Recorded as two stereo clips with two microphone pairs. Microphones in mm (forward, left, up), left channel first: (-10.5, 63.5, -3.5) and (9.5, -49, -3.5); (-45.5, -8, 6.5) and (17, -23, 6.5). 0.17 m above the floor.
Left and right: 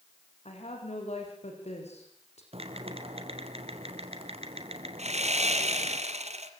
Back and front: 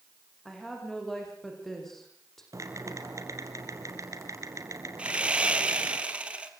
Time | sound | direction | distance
0.5 | a woman speaking | 80° left | 10 m
2.5 | typing on a keyboard | 50° right | 3.5 m
5.0 | sawing | 85° right | 3 m